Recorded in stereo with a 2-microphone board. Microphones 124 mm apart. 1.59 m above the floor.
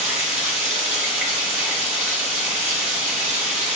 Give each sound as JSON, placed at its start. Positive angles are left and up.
{"t": 0.0, "sound": "running water", "side_deg": -15, "distance_m": 1.7}